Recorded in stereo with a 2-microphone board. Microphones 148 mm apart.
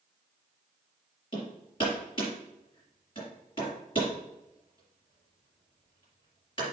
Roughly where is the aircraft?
I don't hear an aircraft.